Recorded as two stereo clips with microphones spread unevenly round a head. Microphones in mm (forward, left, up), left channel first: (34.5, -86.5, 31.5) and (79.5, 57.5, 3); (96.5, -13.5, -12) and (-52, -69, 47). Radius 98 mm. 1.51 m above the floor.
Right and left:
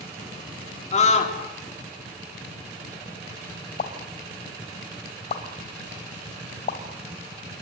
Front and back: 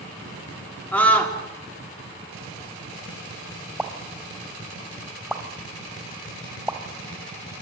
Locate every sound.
0.9 s a scream: 65° right, 3.5 m
3.8 s a pop: 90° right, 2.5 m